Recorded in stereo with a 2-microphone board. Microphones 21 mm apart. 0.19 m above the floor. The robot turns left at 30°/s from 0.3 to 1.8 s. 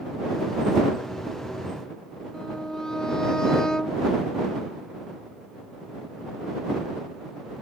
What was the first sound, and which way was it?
A violin, 30° left (ahead or behind).